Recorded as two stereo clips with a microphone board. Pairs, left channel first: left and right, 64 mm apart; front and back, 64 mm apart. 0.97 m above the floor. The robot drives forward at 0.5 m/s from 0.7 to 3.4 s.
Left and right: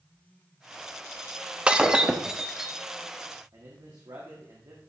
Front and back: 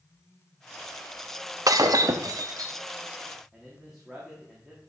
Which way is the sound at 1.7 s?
165° right.